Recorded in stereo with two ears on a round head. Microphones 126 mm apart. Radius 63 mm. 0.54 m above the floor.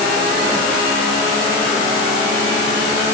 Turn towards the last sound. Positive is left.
No sound to turn to.